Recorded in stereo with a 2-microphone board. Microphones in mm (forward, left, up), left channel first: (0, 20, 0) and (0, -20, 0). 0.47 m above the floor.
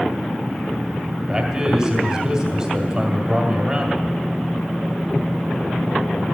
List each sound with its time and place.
1.3 s a man speaking: 15° right (ahead or behind), 2.0 m